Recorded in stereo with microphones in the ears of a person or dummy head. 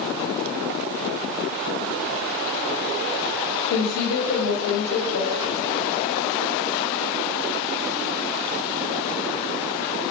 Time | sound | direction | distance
3.7 | a woman speaking | 85° left | 0.7 m